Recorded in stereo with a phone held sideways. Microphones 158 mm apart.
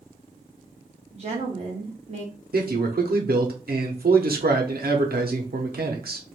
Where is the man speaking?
75° right (ahead or behind), 0.8 m.